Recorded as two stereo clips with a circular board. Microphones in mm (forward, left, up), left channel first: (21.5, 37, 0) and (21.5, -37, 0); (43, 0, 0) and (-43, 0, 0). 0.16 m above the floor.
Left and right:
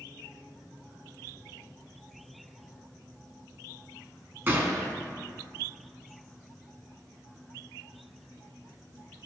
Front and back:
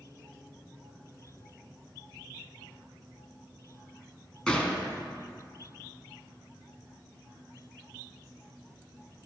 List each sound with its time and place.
4.5 s a gunshot: 70° right, 1.1 m